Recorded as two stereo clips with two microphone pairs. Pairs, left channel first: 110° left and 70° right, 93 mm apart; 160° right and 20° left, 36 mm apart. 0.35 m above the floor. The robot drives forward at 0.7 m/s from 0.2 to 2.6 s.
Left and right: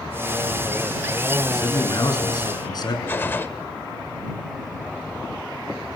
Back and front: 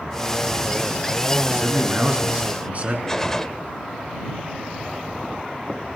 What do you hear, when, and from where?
1.5 s a man speaking: 60° left, 5 m; by 3.0 s 70° left, 5 m
3.1 s a gunshot: 145° left, 1.0 m